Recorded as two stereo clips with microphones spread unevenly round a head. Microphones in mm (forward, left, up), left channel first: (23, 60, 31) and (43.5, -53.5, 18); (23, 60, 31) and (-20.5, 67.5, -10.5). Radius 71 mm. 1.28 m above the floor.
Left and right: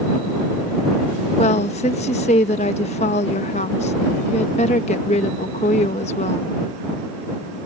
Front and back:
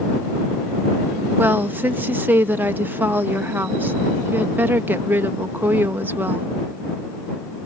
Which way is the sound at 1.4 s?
145° left.